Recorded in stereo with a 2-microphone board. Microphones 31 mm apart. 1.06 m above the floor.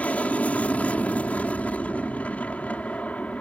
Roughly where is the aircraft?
Left.